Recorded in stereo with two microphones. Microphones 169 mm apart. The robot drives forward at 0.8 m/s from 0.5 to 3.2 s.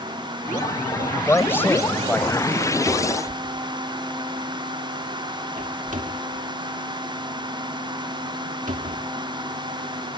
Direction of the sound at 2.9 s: 40° right (ahead or behind).